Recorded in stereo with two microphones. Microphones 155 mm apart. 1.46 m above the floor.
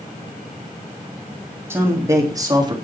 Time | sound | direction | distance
1.7 | a man speaking | 15° right (ahead or behind) | 3.5 m